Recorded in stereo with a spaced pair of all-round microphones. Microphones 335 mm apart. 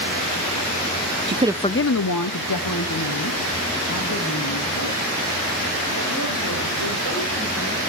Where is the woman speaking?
35° right (ahead or behind), 0.5 m; by 7.8 s 80° left, 7 m.